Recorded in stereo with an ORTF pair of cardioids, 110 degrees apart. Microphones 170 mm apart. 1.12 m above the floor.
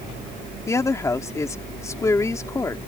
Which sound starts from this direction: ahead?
A woman speaking, at 0.7 s.